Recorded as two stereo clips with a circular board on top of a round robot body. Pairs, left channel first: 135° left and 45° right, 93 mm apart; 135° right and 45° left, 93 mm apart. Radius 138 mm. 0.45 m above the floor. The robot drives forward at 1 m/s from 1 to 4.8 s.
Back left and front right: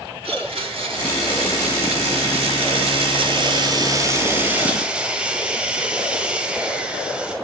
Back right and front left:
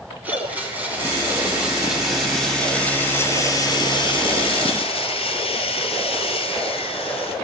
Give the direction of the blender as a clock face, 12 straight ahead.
1 o'clock.